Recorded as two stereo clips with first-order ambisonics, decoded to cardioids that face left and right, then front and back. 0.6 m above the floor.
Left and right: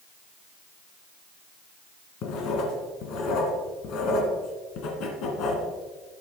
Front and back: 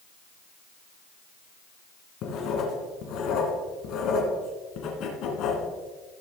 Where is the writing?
45° left, 2 m.